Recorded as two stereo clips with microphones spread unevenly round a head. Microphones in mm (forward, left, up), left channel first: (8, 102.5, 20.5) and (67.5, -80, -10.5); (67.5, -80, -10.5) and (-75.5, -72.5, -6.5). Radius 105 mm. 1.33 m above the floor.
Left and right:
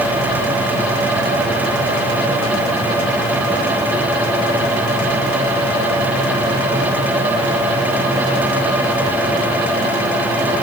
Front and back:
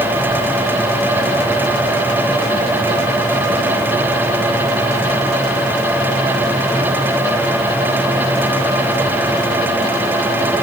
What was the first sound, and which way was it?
Only background noise.